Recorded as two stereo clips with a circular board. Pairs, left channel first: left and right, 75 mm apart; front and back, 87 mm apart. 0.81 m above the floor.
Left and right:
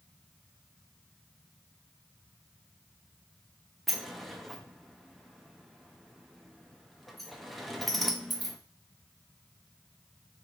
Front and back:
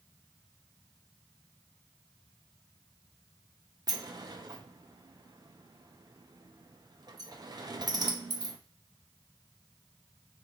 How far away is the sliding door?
About 0.6 m.